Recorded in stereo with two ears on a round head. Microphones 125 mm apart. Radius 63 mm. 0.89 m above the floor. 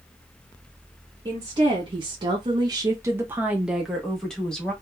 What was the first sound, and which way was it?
A woman speaking, 35° right (ahead or behind).